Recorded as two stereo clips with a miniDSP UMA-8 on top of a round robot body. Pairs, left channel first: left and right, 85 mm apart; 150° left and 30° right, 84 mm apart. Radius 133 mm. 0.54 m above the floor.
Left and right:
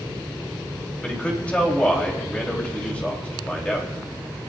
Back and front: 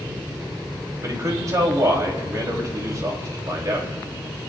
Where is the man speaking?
15° left, 3.5 m.